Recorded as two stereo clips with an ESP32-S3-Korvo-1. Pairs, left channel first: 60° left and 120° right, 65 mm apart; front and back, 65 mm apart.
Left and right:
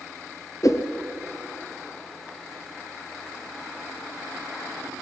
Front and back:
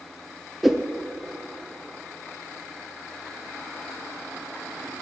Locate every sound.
0.6 s a whoosh: 95° left, 1.0 m